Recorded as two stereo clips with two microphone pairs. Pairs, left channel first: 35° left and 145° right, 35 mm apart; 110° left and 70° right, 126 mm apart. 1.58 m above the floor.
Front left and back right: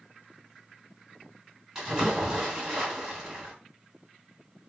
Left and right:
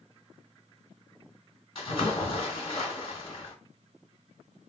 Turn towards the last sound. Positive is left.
turn(degrees=140)